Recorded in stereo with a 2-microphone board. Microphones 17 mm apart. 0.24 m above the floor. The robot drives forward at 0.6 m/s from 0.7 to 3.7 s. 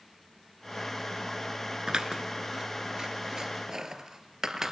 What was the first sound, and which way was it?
Scissors, 55° right (ahead or behind).